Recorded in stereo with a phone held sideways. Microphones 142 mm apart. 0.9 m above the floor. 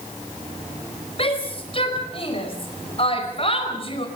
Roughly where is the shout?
Left.